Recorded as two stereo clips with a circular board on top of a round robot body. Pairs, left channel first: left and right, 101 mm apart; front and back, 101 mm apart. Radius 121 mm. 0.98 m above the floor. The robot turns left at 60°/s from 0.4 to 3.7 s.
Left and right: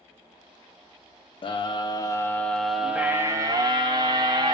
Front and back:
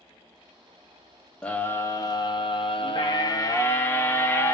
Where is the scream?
80° left, 0.6 m; by 4.5 s 60° right, 0.6 m.